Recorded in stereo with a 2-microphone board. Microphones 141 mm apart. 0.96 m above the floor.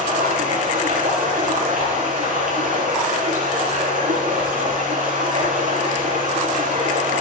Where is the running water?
75° right (ahead or behind), 7.5 m.